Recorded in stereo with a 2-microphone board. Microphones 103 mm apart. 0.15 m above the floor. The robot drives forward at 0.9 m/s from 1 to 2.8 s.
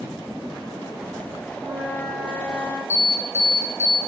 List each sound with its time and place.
1.5 s a flute: 25° right (ahead or behind), 4.5 m; by 2.8 s 20° right (ahead or behind), 5.5 m
2.9 s an alarm: 25° left (ahead or behind), 4.5 m